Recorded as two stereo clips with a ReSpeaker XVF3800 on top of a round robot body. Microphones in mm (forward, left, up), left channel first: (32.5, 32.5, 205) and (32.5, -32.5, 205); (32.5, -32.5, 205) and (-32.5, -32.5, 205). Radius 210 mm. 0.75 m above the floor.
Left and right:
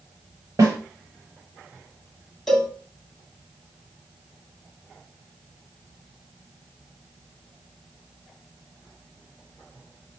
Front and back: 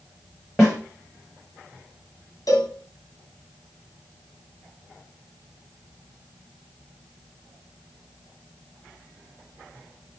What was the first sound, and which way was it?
A snare drum, 85° right.